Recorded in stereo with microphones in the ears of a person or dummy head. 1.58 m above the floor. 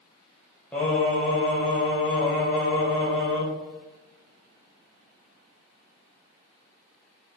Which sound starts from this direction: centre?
Singing, at 0.7 s.